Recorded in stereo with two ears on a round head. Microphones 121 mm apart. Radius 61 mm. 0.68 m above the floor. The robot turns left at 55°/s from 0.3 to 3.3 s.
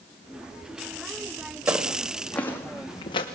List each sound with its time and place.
1.7 s footsteps: 20° right (ahead or behind), 2.5 m; by 3.2 s 40° left (ahead or behind), 2.5 m